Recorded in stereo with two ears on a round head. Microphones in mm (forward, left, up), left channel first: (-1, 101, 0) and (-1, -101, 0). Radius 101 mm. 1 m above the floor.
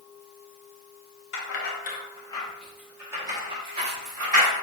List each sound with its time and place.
1.3 s keys jangling: 55° left (ahead or behind), 0.8 m; by 4.5 s 35° right (ahead or behind), 1.5 m